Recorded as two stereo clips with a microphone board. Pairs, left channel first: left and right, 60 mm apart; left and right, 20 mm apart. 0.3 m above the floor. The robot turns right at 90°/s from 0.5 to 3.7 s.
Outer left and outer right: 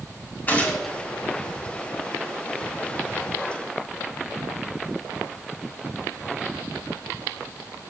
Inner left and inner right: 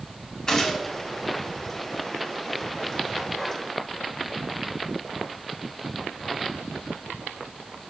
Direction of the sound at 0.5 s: 145° left.